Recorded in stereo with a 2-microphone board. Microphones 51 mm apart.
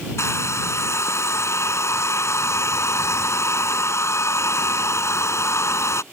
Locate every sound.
0.2 s a hair dryer: 70° left (ahead or behind)